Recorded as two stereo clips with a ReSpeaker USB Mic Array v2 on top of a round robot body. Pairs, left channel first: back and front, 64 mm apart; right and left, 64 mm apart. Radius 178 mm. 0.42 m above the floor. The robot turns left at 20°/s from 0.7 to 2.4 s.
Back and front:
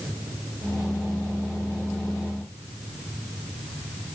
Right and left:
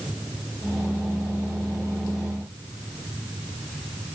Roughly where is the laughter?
I don't hear laughter.